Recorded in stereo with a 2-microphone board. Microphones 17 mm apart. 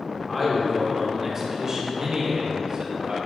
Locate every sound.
0.3 s a man speaking: 5° left (ahead or behind), 1.8 m; by 3.2 s 55° right (ahead or behind), 2.5 m